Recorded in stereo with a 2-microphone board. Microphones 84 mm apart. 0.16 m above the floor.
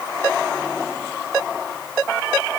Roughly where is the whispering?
I don't hear whispering.